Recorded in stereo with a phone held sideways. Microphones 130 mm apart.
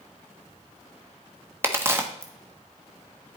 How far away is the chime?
I don't hear a chime.